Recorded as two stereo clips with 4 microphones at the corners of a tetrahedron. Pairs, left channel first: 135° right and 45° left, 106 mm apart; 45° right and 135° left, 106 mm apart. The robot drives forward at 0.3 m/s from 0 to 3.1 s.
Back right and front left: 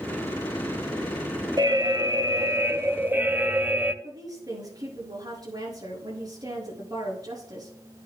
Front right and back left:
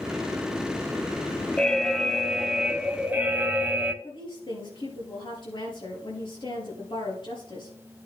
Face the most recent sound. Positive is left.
turn(degrees=-5)